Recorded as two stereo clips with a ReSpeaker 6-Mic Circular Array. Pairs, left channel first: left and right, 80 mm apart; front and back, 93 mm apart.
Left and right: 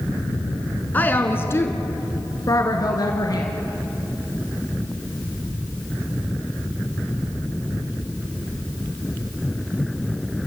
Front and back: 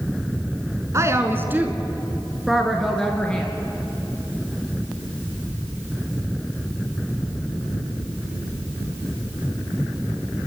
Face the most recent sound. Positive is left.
turn(degrees=75)